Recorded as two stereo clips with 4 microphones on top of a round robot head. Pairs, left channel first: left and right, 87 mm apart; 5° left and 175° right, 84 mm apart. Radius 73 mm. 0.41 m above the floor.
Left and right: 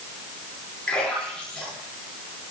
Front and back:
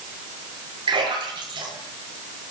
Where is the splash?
165° left, 9 m.